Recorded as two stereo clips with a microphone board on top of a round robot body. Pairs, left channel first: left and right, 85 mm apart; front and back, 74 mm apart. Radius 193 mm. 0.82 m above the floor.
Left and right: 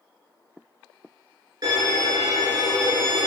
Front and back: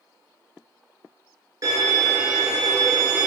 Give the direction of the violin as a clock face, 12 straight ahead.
5 o'clock.